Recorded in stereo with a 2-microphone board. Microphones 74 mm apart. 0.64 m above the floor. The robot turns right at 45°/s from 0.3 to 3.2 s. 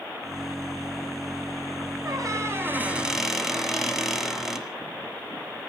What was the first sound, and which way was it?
A squeak, 55° right.